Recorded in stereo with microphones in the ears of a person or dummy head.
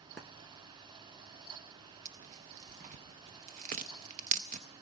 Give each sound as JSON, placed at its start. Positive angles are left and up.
{"t": 2.0, "sound": "tearing paper", "side_deg": -40, "distance_m": 0.6}